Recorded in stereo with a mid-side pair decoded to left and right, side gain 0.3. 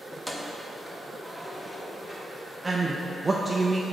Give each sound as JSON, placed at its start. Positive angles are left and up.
{"t": 0.1, "sound": "keys jangling", "azimuth_deg": 20, "distance_m": 0.9}
{"t": 2.6, "sound": "a man speaking", "azimuth_deg": -25, "distance_m": 0.6}